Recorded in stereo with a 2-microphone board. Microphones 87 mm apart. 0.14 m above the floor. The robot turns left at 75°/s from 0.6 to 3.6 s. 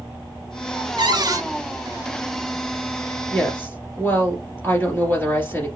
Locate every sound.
1.0 s a cupboard door: 105° right, 0.6 m; by 1.4 s 140° right, 0.6 m
3.3 s a woman speaking: 5° left (ahead or behind), 2 m; by 5.7 s 25° left (ahead or behind), 2 m